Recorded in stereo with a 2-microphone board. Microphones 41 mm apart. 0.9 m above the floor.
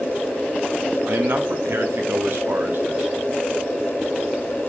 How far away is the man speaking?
About 1.0 m.